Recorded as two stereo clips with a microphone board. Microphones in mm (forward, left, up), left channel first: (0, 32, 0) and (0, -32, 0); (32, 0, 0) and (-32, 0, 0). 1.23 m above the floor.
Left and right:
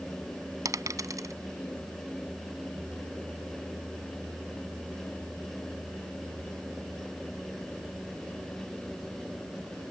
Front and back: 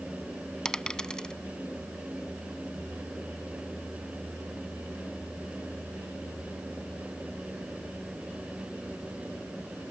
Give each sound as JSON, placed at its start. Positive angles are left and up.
{"t": 0.7, "sound": "a dropped coin", "azimuth_deg": -75}